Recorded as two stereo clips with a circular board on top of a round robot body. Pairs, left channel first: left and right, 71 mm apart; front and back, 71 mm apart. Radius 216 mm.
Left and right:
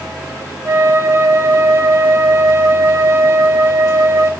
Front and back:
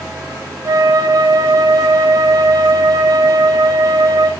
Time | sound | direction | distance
0.7 | a flute | 145° right | 2 m